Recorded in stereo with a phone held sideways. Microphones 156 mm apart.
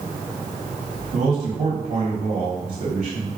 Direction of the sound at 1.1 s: 50° right (ahead or behind).